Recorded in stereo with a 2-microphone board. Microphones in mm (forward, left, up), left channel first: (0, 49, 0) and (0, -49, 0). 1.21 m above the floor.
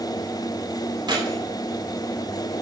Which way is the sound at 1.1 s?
45° right (ahead or behind).